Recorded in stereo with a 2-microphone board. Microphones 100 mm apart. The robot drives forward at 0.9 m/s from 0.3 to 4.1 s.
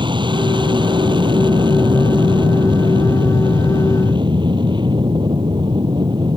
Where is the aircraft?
50° right (ahead or behind).